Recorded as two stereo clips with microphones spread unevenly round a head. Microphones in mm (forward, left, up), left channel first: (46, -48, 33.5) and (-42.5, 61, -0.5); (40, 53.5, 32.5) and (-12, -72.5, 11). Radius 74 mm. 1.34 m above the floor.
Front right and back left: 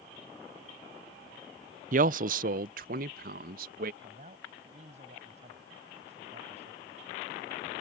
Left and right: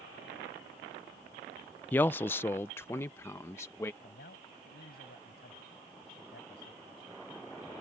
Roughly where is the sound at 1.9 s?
Behind left.